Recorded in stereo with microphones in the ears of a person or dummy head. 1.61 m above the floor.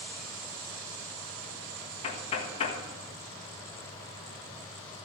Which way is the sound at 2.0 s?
35° left (ahead or behind).